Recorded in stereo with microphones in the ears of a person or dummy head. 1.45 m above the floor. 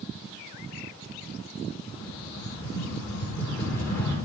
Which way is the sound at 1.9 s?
15° left (ahead or behind).